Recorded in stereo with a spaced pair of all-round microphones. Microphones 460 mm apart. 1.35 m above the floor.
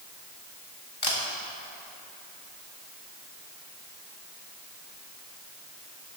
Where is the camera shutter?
55° left (ahead or behind), 1.1 m.